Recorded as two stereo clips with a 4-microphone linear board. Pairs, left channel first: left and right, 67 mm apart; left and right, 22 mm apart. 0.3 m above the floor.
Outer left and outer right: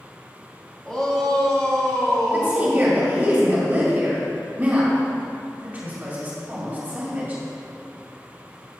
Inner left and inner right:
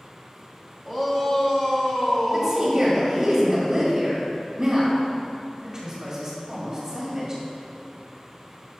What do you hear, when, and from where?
0.8 s a shout: 5° left (ahead or behind), 1.8 m; by 3.0 s 15° left (ahead or behind), 2.5 m
2.3 s a woman speaking: 30° right (ahead or behind), 1.7 m